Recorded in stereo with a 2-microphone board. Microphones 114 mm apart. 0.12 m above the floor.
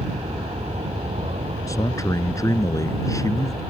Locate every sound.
0.0 s an aircraft: 65° right (ahead or behind)
1.7 s a man speaking: 30° left (ahead or behind)